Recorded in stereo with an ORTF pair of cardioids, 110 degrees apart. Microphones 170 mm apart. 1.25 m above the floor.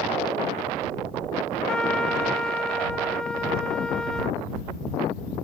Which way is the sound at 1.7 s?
5° left.